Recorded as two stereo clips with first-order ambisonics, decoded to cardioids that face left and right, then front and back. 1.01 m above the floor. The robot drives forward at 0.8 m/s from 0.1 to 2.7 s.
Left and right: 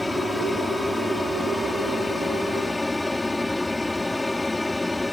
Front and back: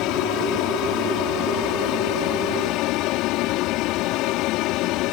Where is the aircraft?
5° left.